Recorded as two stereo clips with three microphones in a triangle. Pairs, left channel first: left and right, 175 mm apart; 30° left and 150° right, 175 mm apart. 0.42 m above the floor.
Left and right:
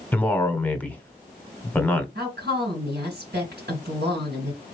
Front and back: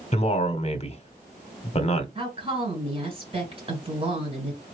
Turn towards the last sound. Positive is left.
turn(degrees=-95)